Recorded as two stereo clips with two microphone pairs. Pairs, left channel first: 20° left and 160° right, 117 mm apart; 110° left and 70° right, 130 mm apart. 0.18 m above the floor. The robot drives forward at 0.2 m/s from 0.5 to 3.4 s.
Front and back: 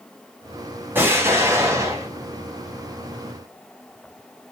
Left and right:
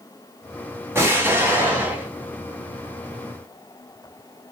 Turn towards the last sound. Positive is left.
turn(degrees=-150)